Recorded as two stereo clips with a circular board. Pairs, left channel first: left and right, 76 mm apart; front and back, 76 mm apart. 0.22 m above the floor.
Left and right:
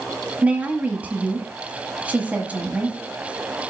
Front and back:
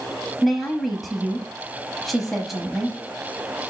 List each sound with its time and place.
0.4 s a woman speaking: 90° right, 1.1 m